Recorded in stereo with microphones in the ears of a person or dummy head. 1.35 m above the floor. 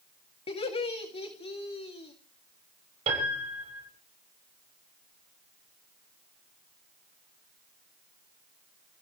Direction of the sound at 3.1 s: 30° right (ahead or behind).